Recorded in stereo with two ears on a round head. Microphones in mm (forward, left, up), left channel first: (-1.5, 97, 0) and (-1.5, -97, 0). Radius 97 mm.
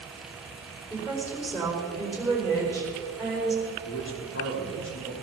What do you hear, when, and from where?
0.9 s a woman speaking: 10° left (ahead or behind), 4.5 m
3.9 s a man speaking: 65° left (ahead or behind), 3.5 m